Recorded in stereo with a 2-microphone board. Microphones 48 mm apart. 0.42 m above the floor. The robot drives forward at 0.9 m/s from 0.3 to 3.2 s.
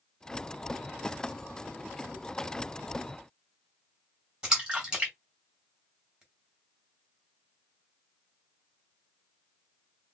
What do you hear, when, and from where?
4.4 s a splash: 15° right (ahead or behind), 2.5 m